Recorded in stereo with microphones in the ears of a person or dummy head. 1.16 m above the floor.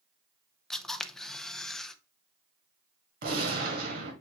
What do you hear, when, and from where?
0.7 s a camera shutter: 5° left (ahead or behind), 0.6 m
3.2 s a gunshot: 55° right (ahead or behind), 1.8 m